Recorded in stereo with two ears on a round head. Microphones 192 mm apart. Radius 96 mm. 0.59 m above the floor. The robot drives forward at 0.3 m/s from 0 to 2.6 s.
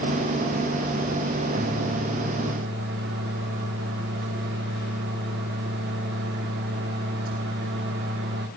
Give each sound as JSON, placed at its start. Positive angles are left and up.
{"t": 1.5, "sound": "a microwave", "side_deg": -50, "distance_m": 1.3}